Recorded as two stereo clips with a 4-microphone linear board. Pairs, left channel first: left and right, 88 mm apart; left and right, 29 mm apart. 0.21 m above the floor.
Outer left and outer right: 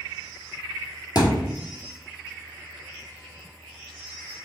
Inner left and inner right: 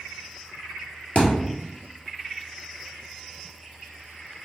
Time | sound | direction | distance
1.1 | a thud | 50° left (ahead or behind) | 1.3 m